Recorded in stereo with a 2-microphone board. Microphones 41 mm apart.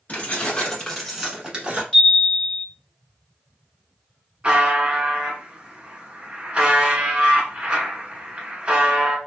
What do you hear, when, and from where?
0.1 s keys jangling: 40° left (ahead or behind), 1.2 m; by 1.8 s 30° right (ahead or behind), 1.0 m
1.9 s a chime: 15° left (ahead or behind), 1.8 m
4.4 s a buzzer: 25° right (ahead or behind), 0.9 m